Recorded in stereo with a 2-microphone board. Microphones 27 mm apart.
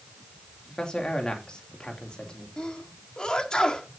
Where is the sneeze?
30° left (ahead or behind), 2 m.